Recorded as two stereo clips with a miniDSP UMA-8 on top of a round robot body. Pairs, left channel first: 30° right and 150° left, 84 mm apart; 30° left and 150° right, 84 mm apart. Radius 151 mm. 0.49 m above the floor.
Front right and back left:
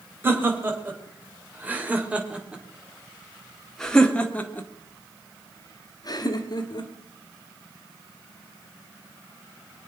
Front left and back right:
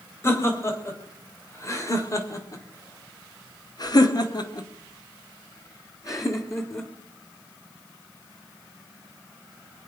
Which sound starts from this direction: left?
Laughter, at 0.2 s.